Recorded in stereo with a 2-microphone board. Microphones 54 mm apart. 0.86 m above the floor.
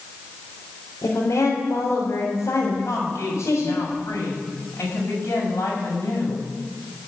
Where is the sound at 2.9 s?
60° left (ahead or behind), 6.5 m.